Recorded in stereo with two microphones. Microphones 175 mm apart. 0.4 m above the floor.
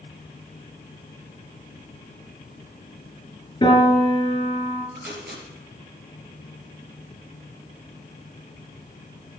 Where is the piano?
25° left (ahead or behind), 5.5 m.